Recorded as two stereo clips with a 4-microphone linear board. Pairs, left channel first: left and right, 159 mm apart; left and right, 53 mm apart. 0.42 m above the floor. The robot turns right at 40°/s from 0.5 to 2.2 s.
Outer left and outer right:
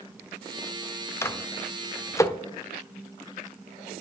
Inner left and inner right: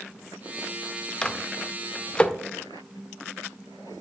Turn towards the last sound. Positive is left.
turn(degrees=20)  # may be behind; listen again after turning